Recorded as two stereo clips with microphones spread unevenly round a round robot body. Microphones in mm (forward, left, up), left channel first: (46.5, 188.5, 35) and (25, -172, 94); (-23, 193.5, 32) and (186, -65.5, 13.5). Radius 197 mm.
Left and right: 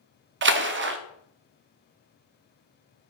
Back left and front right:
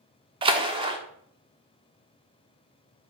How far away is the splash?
About 0.5 m.